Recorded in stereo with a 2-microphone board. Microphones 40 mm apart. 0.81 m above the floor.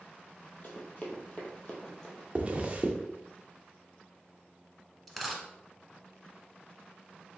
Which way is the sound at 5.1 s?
Centre (ahead or behind).